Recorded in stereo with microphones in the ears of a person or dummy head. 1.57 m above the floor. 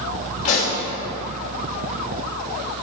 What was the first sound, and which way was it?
A pop, 40° left (ahead or behind).